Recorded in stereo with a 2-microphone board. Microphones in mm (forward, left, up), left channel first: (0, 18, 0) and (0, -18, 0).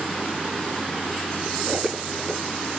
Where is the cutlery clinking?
5° left (ahead or behind), 4.5 m.